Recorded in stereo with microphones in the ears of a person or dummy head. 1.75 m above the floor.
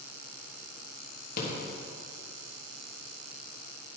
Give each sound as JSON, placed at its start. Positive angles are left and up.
{"t": 1.4, "sound": "a rattle", "side_deg": 55, "distance_m": 3.0}